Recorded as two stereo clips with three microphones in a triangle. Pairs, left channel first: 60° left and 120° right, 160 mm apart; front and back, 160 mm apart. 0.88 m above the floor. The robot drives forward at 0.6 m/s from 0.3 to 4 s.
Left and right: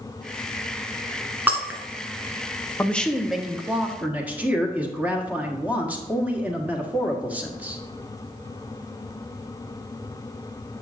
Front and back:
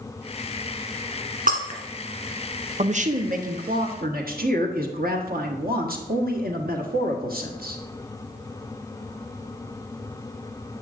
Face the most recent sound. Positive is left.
turn(degrees=160)